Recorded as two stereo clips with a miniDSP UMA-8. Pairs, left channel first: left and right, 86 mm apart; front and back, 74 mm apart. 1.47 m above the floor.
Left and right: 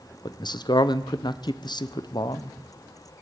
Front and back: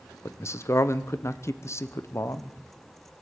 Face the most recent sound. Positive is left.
turn(degrees=50)